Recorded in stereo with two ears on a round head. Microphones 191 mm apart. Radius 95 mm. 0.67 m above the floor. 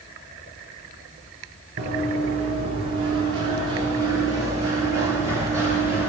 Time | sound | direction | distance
1.8 | running footsteps | 35° right (ahead or behind) | 6.5 m